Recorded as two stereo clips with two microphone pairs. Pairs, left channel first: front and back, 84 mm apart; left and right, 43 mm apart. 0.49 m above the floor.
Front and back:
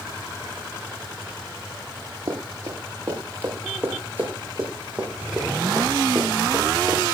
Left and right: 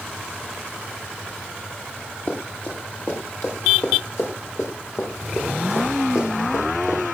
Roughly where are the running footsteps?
Behind left.